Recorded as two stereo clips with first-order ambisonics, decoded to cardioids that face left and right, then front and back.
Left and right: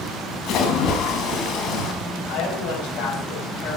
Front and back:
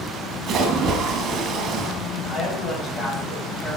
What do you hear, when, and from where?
0.5 s a splash: 130° left, 1.6 m
2.3 s a woman speaking: 65° left, 5.5 m